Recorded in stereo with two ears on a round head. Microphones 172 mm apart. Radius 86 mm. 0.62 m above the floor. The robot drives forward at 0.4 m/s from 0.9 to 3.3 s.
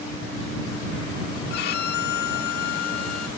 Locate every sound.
1.5 s a violin: 55° left (ahead or behind); by 3.3 s 50° left (ahead or behind)